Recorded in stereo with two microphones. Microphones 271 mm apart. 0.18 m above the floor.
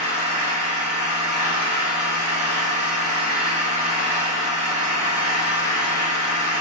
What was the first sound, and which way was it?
An engine running, 30° right (ahead or behind).